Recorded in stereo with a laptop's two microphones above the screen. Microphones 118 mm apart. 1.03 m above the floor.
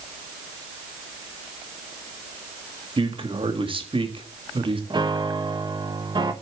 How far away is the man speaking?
About 1.8 m.